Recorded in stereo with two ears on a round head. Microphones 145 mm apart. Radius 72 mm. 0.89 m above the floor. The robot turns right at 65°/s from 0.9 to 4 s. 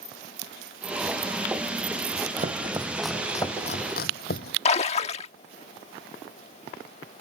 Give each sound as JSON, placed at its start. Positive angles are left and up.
{"t": 2.4, "sound": "chopping", "side_deg": -45}
{"t": 4.7, "sound": "a splash", "side_deg": 40}